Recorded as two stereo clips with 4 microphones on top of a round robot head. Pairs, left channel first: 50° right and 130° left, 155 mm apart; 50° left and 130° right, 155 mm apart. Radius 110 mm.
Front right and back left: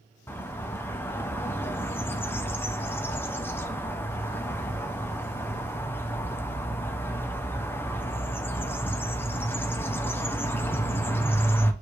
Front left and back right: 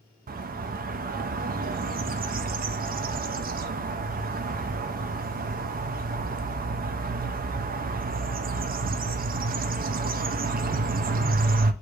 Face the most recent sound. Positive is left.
turn(degrees=-125)